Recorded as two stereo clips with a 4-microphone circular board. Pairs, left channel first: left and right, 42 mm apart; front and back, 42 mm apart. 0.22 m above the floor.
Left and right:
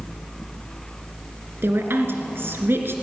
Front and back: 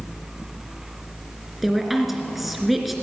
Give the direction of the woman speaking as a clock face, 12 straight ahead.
3 o'clock.